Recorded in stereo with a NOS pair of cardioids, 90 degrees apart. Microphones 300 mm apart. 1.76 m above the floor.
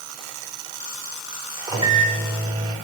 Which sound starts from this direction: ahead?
A microwave, at 1.7 s.